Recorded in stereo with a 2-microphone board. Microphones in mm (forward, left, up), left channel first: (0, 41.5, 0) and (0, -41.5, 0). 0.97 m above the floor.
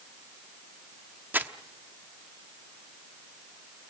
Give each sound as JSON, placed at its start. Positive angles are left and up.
{"t": 1.3, "sound": "crumpling", "side_deg": -20, "distance_m": 0.9}